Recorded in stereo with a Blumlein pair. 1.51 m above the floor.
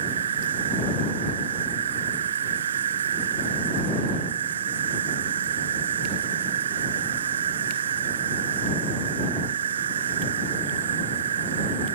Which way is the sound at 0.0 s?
65° right.